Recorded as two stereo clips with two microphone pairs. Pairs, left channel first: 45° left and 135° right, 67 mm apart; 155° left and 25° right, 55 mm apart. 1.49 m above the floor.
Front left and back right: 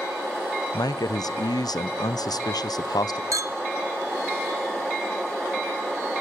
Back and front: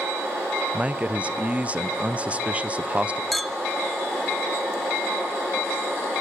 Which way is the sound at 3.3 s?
115° right.